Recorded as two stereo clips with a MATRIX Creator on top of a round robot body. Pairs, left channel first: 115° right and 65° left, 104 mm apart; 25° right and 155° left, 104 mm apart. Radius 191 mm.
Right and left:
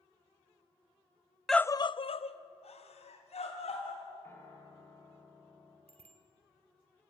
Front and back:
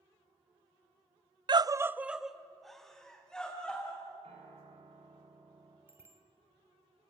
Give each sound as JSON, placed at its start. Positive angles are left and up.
{"t": 1.5, "sound": "a scream", "azimuth_deg": 160, "distance_m": 0.6}
{"t": 4.2, "sound": "a piano", "azimuth_deg": 180, "distance_m": 5.0}
{"t": 5.9, "sound": "a bicycle bell", "azimuth_deg": 90, "distance_m": 3.0}